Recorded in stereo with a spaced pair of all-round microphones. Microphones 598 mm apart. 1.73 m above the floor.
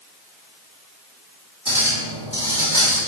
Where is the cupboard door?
No cupboard door in this recording.